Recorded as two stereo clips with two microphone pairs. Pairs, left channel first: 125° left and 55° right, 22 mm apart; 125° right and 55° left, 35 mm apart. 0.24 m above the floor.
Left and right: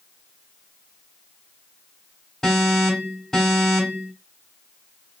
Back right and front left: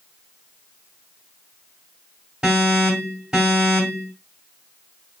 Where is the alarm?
100° left, 2 m.